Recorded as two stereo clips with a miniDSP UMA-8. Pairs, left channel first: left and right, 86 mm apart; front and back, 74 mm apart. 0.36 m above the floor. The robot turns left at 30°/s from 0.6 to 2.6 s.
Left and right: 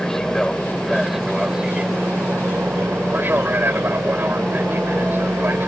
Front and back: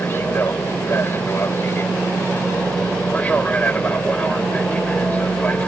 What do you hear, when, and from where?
0.0 s an aircraft: 10° left; by 5.7 s 50° right